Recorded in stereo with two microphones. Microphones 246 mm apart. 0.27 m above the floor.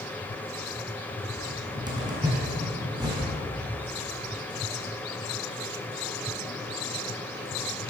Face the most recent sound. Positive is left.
turn(degrees=-15)  # may be behind; listen again after turning